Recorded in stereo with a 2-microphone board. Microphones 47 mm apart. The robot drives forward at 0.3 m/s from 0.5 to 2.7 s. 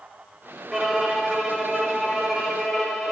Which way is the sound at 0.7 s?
5° right (ahead or behind).